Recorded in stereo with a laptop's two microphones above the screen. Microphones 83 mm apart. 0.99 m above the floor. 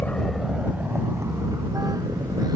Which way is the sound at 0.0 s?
25° left (ahead or behind).